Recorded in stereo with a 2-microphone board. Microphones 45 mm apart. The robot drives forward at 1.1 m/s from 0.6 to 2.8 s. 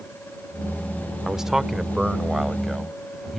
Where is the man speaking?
10° right (ahead or behind); by 3.4 s 5° right (ahead or behind).